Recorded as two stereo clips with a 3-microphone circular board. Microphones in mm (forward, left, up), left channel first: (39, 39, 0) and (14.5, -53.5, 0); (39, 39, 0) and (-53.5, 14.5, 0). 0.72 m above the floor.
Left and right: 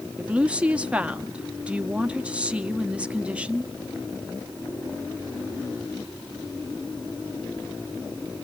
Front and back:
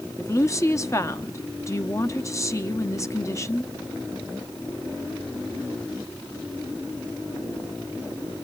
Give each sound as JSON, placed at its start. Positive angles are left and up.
{"t": 0.2, "sound": "a woman speaking", "azimuth_deg": -30, "distance_m": 1.0}